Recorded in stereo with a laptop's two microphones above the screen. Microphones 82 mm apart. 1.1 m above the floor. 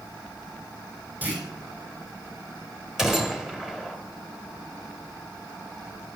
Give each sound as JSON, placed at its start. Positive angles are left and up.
{"t": 1.2, "sound": "a clunk", "side_deg": -20, "distance_m": 5.0}
{"t": 3.0, "sound": "a gunshot", "side_deg": -5, "distance_m": 2.5}